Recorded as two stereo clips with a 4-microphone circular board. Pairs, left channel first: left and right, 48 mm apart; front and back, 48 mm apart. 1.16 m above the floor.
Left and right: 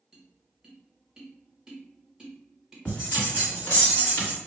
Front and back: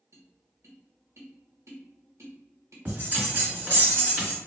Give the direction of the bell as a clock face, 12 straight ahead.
7 o'clock.